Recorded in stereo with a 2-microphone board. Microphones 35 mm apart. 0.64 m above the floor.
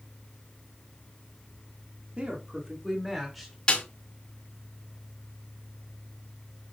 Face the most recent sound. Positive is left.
turn(degrees=25)  # may be behind; listen again after turning